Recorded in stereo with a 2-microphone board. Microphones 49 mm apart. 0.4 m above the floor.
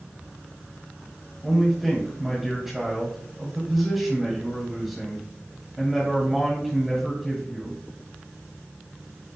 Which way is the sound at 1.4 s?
5° right (ahead or behind).